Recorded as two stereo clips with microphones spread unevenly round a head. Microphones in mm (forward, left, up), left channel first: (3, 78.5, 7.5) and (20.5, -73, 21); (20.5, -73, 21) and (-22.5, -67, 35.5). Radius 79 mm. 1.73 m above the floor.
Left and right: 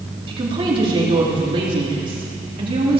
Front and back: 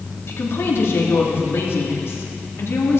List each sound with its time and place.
0.3 s a woman speaking: 30° right, 3.5 m